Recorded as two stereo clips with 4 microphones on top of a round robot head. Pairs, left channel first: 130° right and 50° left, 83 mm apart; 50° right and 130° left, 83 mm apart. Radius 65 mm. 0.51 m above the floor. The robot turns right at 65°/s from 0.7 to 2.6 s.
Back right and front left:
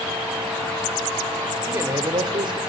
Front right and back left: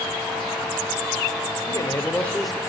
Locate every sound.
1.7 s a man speaking: 10° right, 1.7 m; by 2.6 s 45° left, 1.7 m